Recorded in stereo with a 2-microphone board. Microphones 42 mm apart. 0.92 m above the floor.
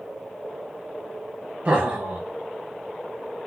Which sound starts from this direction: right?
Laughter, at 1.6 s.